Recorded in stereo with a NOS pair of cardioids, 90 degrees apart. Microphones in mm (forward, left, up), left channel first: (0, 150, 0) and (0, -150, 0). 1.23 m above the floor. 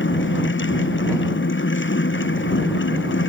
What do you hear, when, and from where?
0.0 s a fan: 40° left